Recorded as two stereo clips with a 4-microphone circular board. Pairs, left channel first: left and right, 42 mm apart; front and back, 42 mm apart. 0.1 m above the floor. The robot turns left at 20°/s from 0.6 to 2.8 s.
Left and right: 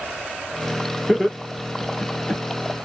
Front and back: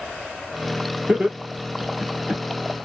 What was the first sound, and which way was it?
Laughter, 165° right.